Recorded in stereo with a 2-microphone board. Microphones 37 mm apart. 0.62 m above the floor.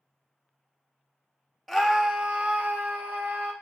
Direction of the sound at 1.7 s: Centre (ahead or behind).